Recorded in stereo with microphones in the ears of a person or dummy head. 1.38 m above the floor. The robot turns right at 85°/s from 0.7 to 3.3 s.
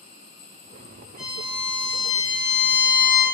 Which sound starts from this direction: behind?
A violin, at 1.2 s.